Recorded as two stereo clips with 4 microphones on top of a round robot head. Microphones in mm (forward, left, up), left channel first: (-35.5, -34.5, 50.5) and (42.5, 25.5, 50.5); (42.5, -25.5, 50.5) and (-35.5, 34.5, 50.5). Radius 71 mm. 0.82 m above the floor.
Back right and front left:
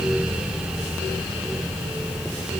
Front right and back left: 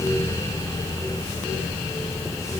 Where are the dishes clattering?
No dishes clattering in this recording.